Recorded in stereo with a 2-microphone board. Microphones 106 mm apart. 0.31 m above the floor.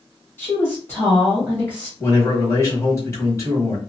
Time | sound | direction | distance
0.4 | a woman speaking | 20° left (ahead or behind) | 1.3 m
2.0 | a man speaking | 30° left (ahead or behind) | 1.5 m